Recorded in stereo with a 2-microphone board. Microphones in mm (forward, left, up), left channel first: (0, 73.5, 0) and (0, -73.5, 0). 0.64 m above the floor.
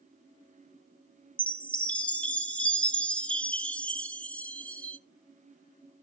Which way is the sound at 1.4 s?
5° left (ahead or behind).